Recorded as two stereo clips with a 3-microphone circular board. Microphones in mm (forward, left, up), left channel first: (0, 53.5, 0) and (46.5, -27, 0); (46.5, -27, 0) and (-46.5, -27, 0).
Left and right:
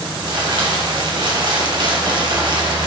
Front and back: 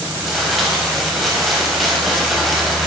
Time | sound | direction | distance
0.2 | crumpling | 90° right | 3.5 m